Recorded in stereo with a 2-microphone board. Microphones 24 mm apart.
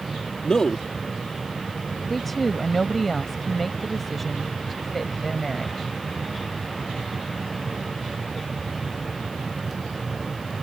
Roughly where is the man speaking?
Left.